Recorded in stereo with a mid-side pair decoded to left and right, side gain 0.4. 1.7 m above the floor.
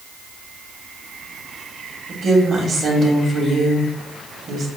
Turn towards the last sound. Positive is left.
turn(degrees=-50)